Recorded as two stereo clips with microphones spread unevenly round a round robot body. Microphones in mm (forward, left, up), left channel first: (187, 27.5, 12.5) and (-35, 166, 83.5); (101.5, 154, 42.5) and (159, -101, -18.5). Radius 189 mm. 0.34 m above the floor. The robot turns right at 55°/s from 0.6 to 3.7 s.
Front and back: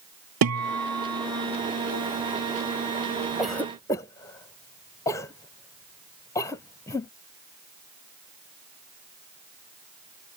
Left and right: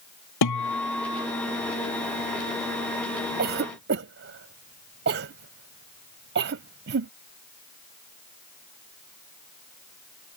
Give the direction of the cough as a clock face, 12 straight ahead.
4 o'clock.